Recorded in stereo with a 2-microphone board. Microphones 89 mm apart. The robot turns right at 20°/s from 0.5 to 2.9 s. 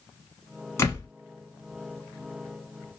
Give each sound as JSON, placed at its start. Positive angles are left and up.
{"t": 0.8, "sound": "a door slam", "side_deg": 30, "distance_m": 1.0}